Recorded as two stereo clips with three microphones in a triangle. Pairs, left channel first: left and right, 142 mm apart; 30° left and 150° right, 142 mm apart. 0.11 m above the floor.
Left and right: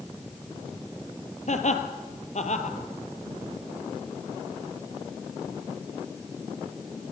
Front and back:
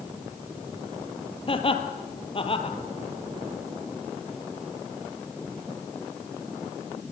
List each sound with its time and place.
1.5 s laughter: 70° left, 2.5 m